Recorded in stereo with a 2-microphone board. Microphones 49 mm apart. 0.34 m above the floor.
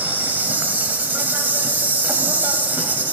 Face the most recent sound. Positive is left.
turn(degrees=-40)  # may be behind; listen again after turning